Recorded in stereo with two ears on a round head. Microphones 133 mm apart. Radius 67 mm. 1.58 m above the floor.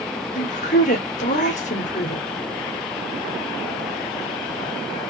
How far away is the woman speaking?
About 1.2 m.